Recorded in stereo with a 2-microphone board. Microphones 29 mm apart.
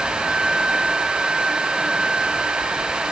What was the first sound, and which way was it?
Only background noise.